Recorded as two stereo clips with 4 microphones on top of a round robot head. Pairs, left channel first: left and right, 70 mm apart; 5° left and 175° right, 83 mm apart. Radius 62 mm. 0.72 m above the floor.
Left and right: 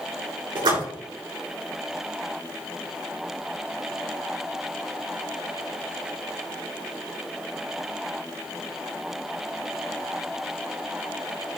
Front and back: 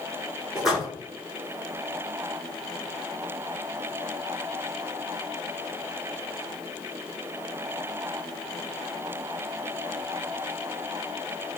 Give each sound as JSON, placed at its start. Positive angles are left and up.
{"t": 0.6, "sound": "a splash", "azimuth_deg": -90, "distance_m": 5.5}